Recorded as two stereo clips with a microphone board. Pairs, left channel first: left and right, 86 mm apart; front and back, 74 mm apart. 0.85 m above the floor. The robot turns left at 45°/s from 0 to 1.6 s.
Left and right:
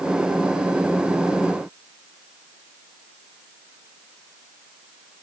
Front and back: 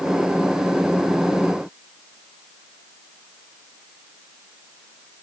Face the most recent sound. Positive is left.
No sound to turn to.